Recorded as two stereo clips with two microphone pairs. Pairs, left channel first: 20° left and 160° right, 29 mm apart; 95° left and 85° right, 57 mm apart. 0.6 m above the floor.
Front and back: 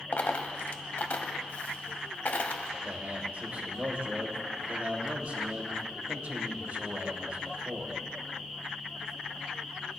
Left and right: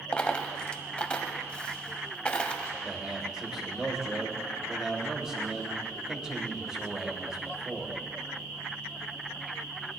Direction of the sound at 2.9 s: 165° right.